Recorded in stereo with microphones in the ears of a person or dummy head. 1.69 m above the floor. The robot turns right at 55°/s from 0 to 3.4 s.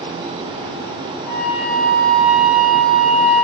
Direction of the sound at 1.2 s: 120° left.